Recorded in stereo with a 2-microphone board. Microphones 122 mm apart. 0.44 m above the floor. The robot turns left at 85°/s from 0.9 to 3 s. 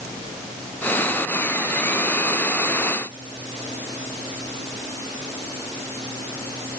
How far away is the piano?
I don't hear a piano.